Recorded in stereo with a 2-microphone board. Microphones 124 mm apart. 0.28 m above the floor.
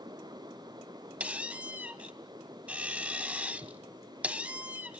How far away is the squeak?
About 0.7 m.